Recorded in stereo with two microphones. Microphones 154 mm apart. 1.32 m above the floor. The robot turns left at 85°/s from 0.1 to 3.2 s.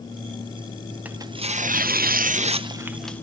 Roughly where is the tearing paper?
Ahead.